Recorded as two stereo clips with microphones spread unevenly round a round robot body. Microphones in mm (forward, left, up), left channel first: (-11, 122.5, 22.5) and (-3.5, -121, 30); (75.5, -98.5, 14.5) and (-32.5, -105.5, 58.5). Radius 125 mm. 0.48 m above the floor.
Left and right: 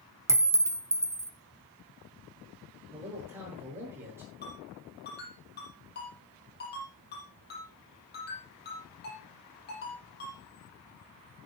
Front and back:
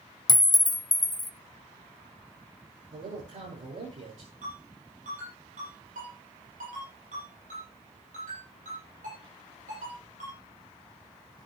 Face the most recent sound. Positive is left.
turn(degrees=145)